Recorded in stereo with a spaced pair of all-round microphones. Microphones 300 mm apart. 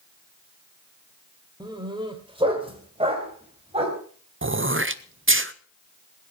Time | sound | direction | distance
1.6 | a dog barking | 15° right (ahead or behind) | 1.7 m
4.4 | throat clearing | 40° right (ahead or behind) | 0.6 m